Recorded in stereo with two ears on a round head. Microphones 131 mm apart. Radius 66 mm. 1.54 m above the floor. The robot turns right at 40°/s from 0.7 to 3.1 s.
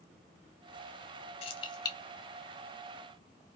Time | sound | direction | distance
1.4 | keys jangling | 40° left (ahead or behind) | 1.0 m